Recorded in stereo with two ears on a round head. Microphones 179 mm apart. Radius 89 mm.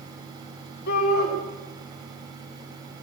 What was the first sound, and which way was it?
A shout, 55° left (ahead or behind).